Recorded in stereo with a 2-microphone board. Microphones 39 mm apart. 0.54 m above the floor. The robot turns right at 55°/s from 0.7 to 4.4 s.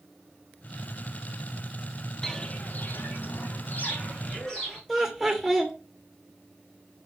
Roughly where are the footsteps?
Centre.